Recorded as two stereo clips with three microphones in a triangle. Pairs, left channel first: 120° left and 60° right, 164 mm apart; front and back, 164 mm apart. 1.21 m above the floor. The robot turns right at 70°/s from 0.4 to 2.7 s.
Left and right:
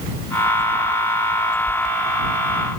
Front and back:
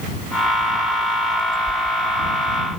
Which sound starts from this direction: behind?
A whoosh, at 1.7 s.